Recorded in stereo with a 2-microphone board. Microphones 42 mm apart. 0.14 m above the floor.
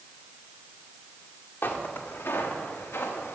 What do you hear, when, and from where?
1.6 s footsteps: 60° left (ahead or behind), 1.9 m; by 3.4 s 85° left, 2.5 m